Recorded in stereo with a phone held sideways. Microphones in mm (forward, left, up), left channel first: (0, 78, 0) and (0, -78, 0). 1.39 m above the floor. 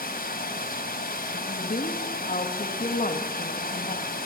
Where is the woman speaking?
60° left (ahead or behind), 2.5 m.